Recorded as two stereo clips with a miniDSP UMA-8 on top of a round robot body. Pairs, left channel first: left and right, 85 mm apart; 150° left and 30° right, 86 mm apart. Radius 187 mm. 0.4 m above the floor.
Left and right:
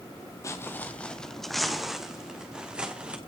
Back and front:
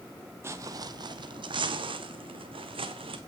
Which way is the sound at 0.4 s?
35° left.